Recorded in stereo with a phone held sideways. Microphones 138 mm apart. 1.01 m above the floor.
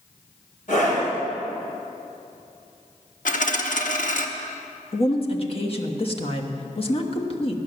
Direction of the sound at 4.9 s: 45° left (ahead or behind).